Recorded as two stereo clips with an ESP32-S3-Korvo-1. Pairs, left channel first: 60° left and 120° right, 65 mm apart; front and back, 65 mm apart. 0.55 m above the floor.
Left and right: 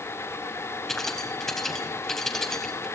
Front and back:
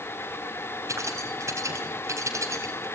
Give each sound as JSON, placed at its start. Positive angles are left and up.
{"t": 0.9, "sound": "keys jangling", "azimuth_deg": 145, "distance_m": 3.0}